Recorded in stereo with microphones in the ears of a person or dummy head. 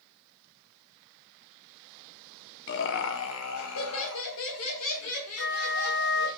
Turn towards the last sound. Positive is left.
turn(degrees=70)  # may be behind; listen again after turning